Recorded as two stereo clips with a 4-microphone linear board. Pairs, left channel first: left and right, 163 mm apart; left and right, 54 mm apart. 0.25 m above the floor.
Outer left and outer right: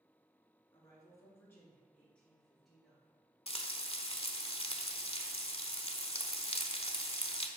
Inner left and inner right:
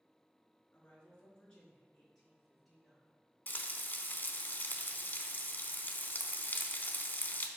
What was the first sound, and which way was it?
A woman speaking, 25° left (ahead or behind).